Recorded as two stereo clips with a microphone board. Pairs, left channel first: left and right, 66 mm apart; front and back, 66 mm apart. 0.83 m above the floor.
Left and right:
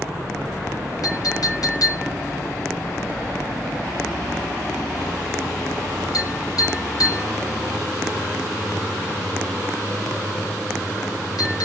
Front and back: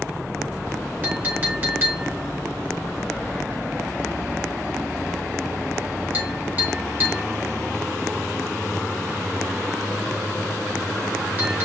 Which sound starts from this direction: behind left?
A clink, at 1.0 s.